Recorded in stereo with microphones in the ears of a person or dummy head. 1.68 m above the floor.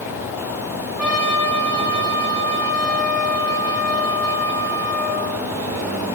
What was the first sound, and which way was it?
A trumpet, 5° right (ahead or behind).